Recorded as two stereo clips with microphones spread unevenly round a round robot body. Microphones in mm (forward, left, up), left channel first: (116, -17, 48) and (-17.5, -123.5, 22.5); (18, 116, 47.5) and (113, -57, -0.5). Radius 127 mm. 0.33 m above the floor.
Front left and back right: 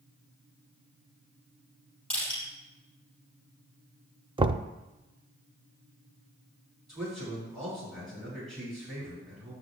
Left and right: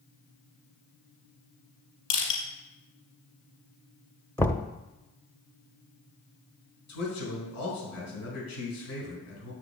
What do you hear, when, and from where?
2.1 s crushing: 125° left, 4.5 m
4.4 s knocking: 145° right, 0.6 m
6.9 s a man speaking: 130° left, 4.5 m